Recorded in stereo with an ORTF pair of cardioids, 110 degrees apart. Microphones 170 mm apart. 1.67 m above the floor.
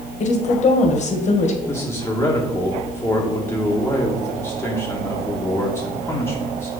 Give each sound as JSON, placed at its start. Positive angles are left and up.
{"t": 0.2, "sound": "a woman speaking", "azimuth_deg": 45, "distance_m": 2.0}
{"t": 1.7, "sound": "a man speaking", "azimuth_deg": 15, "distance_m": 1.8}